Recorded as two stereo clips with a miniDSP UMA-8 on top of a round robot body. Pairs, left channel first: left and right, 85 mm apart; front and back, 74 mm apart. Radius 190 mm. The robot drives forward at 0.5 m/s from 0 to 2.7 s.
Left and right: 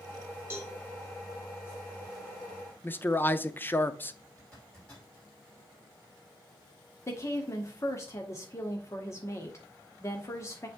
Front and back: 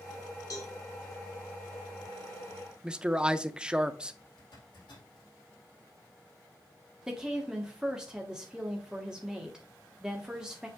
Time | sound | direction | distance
0.5 | a cowbell | 25° right | 2.5 m
2.8 | a man speaking | 115° left | 0.9 m
4.4 | a zipper | 10° left | 4.5 m
7.1 | a woman speaking | 105° left | 1.7 m